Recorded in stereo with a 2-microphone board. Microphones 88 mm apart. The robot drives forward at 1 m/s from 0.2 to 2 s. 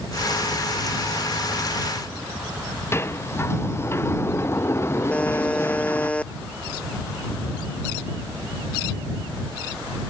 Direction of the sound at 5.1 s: 15° left (ahead or behind).